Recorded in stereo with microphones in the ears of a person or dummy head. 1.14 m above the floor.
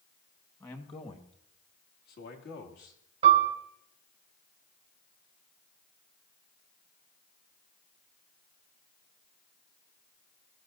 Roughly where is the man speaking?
Centre.